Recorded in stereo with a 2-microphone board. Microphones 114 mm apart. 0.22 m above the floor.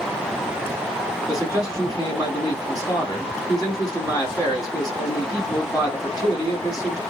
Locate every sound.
1.3 s a man speaking: 30° left (ahead or behind), 1.8 m